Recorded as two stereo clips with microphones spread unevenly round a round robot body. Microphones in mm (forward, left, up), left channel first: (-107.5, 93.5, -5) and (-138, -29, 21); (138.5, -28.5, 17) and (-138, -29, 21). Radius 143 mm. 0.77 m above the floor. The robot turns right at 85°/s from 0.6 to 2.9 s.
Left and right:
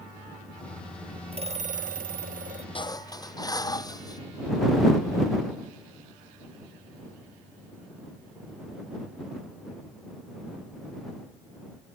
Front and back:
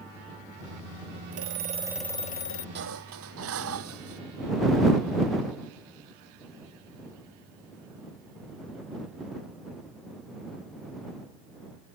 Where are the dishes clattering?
125° left; by 4.2 s 135° left.